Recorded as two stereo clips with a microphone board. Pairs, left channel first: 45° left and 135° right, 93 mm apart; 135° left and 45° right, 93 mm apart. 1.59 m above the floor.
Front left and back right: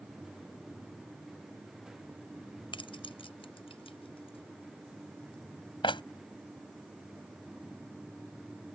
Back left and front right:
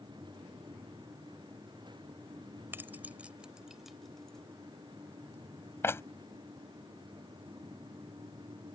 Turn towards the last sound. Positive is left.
turn(degrees=75)